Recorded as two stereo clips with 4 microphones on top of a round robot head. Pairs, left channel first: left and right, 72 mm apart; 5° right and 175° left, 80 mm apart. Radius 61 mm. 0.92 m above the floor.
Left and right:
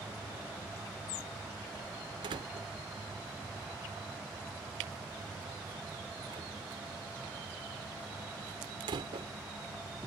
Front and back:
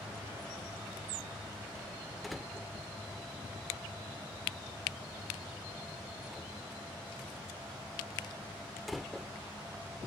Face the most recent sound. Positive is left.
turn(degrees=-95)